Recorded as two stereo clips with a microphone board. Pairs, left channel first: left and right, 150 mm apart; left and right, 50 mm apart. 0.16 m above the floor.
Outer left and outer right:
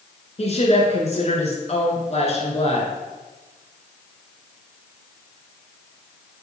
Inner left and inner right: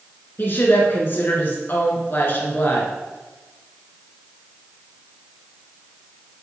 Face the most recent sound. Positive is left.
turn(degrees=45)  # may be behind; listen again after turning